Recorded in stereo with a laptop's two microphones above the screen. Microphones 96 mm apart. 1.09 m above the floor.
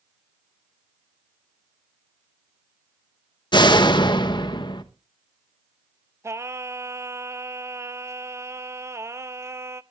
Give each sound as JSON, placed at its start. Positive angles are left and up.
{"t": 3.5, "sound": "a door slam", "side_deg": 50, "distance_m": 0.8}
{"t": 6.2, "sound": "singing", "side_deg": -30, "distance_m": 0.6}